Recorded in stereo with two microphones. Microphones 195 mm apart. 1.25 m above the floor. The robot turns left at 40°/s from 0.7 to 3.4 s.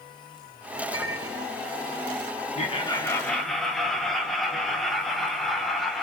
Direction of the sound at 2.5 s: 35° left.